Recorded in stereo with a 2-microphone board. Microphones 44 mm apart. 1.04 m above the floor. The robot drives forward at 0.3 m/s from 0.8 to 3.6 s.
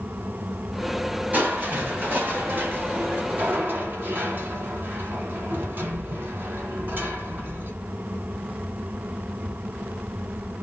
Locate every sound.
1.3 s crushing: 35° right (ahead or behind), 1.1 m; by 7.7 s 45° right (ahead or behind), 0.9 m